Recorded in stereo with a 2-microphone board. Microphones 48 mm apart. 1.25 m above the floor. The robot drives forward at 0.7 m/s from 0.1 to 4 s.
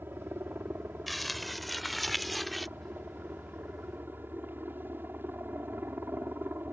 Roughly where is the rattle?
No rattle in this recording.